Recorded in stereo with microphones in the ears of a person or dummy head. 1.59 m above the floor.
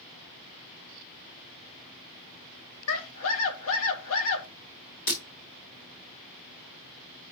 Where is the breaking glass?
25° left (ahead or behind), 1.5 m.